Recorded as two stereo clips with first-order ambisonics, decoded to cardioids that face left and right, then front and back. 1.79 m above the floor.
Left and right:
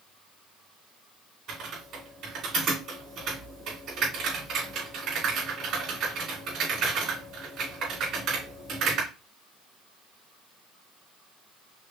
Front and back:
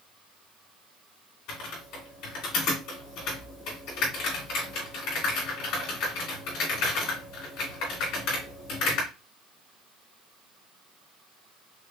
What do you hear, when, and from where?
1.5 s typing on a keyboard: 40° right, 3 m